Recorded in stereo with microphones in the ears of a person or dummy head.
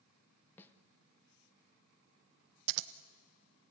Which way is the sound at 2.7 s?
65° right (ahead or behind).